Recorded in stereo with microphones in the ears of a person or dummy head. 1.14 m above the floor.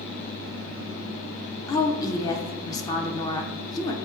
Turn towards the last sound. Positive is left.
turn(degrees=20)  # may be behind; listen again after turning